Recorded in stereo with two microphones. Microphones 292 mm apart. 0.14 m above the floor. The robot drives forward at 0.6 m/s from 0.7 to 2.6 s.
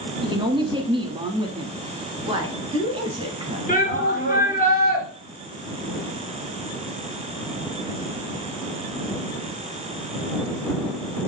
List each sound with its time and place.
0.2 s a woman speaking: 15° right (ahead or behind), 1.0 m
2.3 s a woman speaking: 20° right (ahead or behind), 1.3 m; by 3.6 s 15° right (ahead or behind), 1.4 m
3.7 s a shout: 25° left (ahead or behind), 2.0 m